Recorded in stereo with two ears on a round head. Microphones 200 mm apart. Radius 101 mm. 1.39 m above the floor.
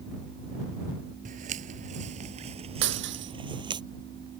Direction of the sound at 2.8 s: 60° right (ahead or behind).